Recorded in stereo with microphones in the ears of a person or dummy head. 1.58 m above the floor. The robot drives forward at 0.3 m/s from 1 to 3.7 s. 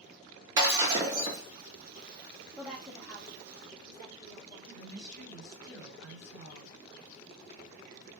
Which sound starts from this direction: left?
A woman speaking, at 4.7 s.